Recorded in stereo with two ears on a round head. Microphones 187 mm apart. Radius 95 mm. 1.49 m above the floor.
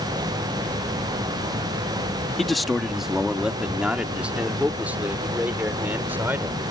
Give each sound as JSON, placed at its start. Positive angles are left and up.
{"t": 2.4, "sound": "a man speaking", "side_deg": 0}